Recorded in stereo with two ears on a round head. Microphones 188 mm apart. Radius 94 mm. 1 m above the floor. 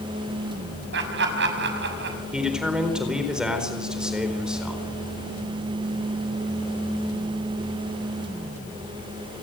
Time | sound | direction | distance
0.9 | laughter | 60° right (ahead or behind) | 6.5 m
2.3 | a man speaking | 5° right (ahead or behind) | 4 m